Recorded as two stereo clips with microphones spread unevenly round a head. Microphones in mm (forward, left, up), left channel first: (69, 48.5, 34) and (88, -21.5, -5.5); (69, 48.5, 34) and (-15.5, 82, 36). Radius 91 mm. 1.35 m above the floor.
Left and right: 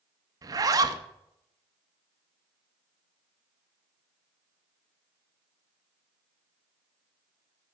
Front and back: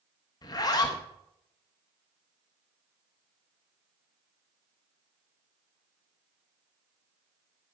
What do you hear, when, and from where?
0.4 s a zipper: 20° right, 0.9 m